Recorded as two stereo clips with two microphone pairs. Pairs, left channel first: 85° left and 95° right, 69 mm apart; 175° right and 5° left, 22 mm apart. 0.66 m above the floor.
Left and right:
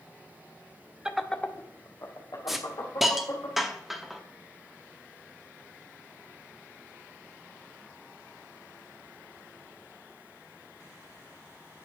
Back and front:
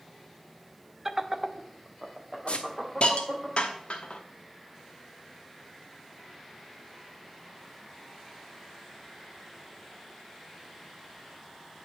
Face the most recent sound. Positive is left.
turn(degrees=180)